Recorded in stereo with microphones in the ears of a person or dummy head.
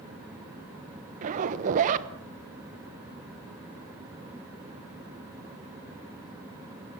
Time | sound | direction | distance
1.2 | a zipper | 45° right (ahead or behind) | 1.2 m